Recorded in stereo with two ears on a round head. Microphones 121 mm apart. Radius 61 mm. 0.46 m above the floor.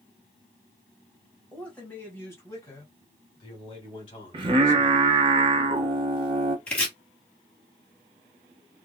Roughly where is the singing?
Right.